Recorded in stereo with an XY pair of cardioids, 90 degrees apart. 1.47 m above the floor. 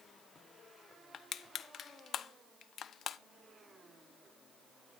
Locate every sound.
1.1 s crushing: 60° left, 0.8 m